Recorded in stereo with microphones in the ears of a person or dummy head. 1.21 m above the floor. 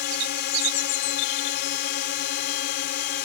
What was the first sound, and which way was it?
A drone, 55° left (ahead or behind).